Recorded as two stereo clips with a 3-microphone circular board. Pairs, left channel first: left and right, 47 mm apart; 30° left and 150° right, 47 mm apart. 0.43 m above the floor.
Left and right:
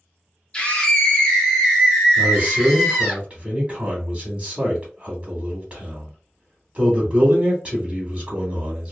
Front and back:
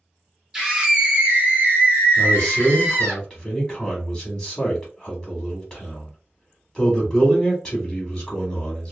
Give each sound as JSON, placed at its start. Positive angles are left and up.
{"t": 0.5, "sound": "a scream", "azimuth_deg": 140, "distance_m": 0.9}
{"t": 2.2, "sound": "a man speaking", "azimuth_deg": -45, "distance_m": 1.0}